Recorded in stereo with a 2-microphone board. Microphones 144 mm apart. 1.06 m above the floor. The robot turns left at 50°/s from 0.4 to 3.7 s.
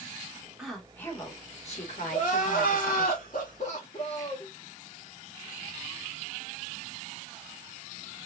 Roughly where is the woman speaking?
Behind.